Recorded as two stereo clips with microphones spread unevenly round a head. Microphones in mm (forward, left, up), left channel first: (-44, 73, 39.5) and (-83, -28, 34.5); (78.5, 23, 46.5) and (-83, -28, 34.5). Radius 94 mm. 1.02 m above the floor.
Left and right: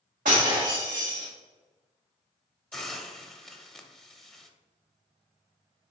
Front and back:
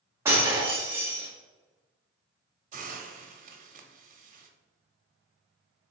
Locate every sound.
0.2 s breaking glass: 85° right, 1.4 m
2.7 s a hiss: 155° left, 0.7 m